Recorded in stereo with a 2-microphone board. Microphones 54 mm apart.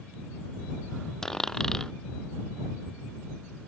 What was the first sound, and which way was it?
A dropped coin, 10° left (ahead or behind).